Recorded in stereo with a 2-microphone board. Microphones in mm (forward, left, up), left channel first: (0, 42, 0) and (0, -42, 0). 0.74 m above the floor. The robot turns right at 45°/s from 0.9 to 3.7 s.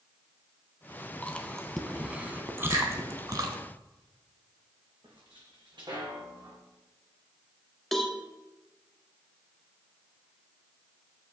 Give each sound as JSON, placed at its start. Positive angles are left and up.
{"t": 1.2, "sound": "chewing", "side_deg": 15, "distance_m": 0.8}
{"t": 2.7, "sound": "a finger snap", "side_deg": -65, "distance_m": 2.0}
{"t": 5.0, "sound": "footsteps", "side_deg": -70, "distance_m": 2.5}
{"t": 7.9, "sound": "a cowbell", "side_deg": 0, "distance_m": 0.8}